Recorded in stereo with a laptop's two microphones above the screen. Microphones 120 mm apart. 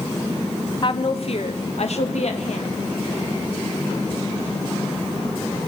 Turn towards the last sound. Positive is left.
turn(degrees=75)  # may be behind; listen again after turning